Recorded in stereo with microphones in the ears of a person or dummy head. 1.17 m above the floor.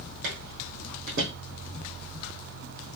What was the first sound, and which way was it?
Footsteps, 55° right (ahead or behind).